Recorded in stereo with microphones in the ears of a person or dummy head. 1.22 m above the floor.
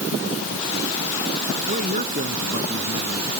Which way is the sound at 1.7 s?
50° right (ahead or behind).